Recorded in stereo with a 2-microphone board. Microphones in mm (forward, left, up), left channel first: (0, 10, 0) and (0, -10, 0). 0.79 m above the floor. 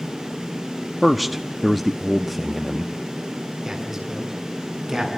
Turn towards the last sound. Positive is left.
turn(degrees=-20)  # may be behind; listen again after turning